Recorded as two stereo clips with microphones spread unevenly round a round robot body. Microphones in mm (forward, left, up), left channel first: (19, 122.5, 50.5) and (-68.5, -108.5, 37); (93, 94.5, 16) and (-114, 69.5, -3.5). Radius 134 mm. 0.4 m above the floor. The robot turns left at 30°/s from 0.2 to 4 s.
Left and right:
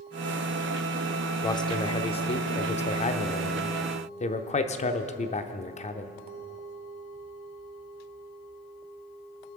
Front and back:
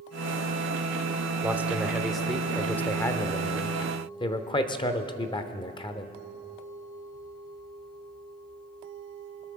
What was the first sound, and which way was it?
A man speaking, 130° left.